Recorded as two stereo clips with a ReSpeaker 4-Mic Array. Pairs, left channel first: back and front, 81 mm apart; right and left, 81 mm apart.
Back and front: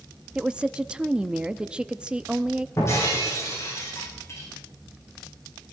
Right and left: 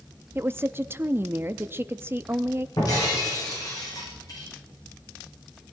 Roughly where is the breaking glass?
Behind right.